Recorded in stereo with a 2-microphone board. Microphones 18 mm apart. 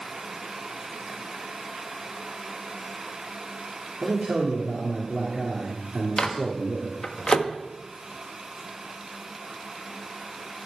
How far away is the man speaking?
About 2.5 m.